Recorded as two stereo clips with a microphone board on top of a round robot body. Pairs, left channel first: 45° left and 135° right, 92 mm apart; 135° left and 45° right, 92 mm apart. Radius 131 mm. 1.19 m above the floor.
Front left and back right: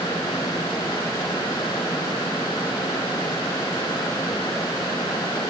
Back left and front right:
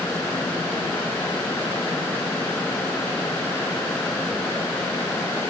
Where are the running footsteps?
No running footsteps in this recording.